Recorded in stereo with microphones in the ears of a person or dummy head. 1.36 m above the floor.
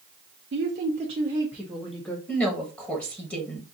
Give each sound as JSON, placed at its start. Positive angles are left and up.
{"t": 0.5, "sound": "a woman speaking", "side_deg": -55, "distance_m": 0.7}
{"t": 2.3, "sound": "a woman speaking", "side_deg": 0, "distance_m": 1.2}